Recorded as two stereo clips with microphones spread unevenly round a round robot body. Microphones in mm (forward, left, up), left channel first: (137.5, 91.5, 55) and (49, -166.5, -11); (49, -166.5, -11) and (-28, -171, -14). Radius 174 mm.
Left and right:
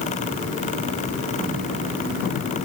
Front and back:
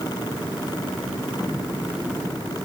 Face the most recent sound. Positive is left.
No sound to turn to.